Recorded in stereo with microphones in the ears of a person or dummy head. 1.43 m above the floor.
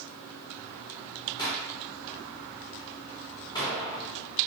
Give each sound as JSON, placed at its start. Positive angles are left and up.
{"t": 1.4, "sound": "a gunshot", "side_deg": 25, "distance_m": 5.0}